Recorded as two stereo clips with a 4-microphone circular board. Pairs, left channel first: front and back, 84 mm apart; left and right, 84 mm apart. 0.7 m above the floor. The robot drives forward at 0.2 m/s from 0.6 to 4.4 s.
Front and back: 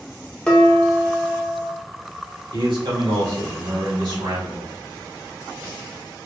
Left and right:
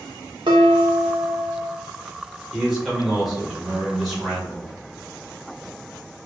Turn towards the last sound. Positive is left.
turn(degrees=180)